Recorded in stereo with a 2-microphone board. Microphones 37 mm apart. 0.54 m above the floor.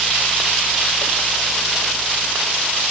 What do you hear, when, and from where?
Only background noise.